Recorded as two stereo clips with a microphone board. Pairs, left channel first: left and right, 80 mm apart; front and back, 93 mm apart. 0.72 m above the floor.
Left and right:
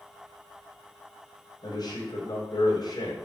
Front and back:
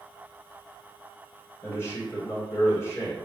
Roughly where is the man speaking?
Ahead left.